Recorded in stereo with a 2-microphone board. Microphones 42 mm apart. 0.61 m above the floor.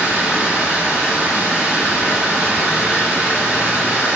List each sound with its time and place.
0.0 s running water: 50° right (ahead or behind), 1.9 m